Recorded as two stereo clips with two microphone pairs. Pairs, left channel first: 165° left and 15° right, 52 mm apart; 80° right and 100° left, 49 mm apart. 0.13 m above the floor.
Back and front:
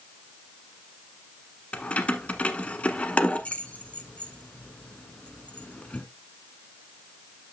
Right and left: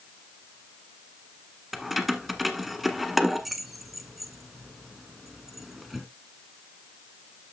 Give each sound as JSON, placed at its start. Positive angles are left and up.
{"t": 1.7, "sound": "keys jangling", "azimuth_deg": -175, "distance_m": 1.0}